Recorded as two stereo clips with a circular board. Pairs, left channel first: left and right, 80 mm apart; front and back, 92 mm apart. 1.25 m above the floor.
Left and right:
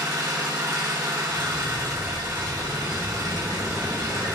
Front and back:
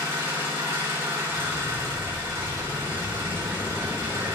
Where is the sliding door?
105° left, 1.5 m.